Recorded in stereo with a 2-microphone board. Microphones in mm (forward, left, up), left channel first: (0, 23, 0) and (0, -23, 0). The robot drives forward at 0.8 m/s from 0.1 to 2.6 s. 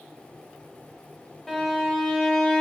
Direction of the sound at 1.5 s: 10° left (ahead or behind).